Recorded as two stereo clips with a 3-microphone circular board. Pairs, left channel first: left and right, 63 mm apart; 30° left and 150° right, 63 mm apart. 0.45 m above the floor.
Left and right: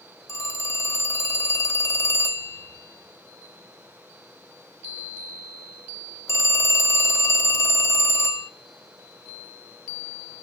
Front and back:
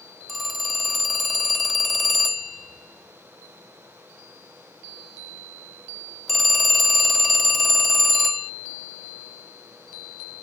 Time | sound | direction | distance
0.3 | a phone ringing | 120° left | 0.6 m